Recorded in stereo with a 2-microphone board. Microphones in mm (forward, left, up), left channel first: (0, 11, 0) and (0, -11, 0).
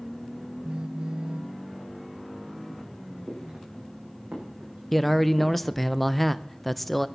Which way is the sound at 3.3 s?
75° right (ahead or behind).